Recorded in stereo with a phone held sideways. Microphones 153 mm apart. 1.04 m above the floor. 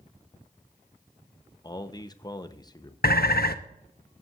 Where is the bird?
80° left, 0.6 m.